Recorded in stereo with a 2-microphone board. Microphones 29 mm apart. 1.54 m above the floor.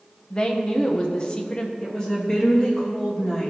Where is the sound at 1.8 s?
25° left (ahead or behind), 2.5 m.